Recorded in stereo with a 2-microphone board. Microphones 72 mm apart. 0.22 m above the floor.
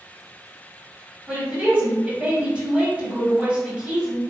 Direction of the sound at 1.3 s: 20° right (ahead or behind).